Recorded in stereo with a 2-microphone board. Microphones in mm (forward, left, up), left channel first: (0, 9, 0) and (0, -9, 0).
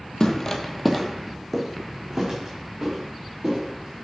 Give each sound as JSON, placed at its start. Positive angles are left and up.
{"t": 0.2, "sound": "footsteps", "side_deg": 45, "distance_m": 1.1}